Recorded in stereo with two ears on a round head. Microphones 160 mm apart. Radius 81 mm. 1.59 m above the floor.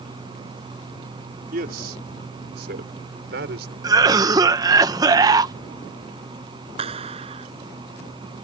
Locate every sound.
1.5 s a man speaking: 60° right (ahead or behind); by 3.7 s 75° right (ahead or behind)
3.8 s a cough: 20° right (ahead or behind)
6.8 s a clap: 35° right (ahead or behind)